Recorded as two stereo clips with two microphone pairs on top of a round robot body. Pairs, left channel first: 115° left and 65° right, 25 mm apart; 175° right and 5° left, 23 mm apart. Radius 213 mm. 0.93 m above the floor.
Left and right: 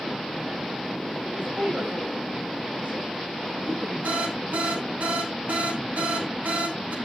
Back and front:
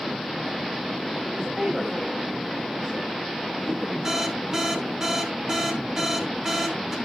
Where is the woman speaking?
60° right, 6 m.